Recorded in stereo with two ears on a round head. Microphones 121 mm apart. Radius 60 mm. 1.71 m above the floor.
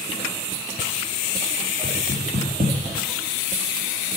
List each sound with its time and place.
1.8 s knocking: 55° right (ahead or behind), 2 m